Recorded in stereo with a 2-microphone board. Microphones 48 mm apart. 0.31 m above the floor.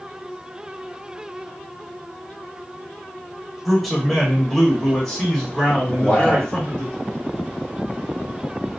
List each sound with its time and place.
3.6 s a man speaking: centre (ahead or behind), 1.2 m; by 6.9 s 20° left (ahead or behind), 1.7 m
5.9 s a man speaking: 30° left (ahead or behind), 1.7 m